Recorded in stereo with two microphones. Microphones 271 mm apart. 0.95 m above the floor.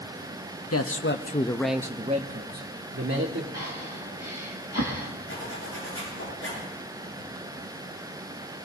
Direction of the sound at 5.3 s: 55° left (ahead or behind).